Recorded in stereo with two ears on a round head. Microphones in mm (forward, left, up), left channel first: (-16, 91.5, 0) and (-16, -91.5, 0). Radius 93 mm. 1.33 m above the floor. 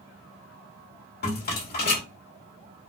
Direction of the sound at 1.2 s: 50° left (ahead or behind).